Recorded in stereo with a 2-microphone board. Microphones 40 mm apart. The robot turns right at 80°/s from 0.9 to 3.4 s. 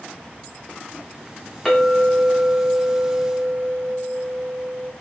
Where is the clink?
165° left, 1.1 m; by 4.9 s 55° right, 1.1 m.